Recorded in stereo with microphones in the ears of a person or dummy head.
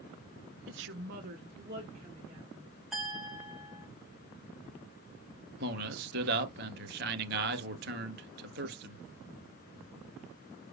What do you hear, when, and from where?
0.7 s a woman speaking: 55° right (ahead or behind), 0.6 m; by 2.7 s 25° right (ahead or behind), 2.5 m
2.9 s a clink: 5° right (ahead or behind), 1.8 m
5.6 s a man speaking: 55° right (ahead or behind), 0.7 m